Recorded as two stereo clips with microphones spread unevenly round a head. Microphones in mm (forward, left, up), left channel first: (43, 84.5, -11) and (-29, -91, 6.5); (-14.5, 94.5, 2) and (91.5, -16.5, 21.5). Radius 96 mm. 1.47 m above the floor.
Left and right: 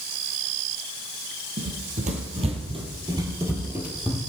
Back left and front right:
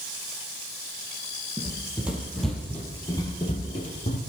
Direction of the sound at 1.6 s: 110° right.